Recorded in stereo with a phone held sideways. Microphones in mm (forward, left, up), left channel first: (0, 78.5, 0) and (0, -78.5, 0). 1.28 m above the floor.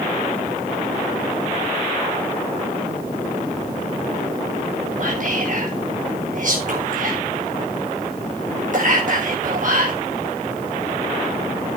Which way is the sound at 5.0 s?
55° right (ahead or behind).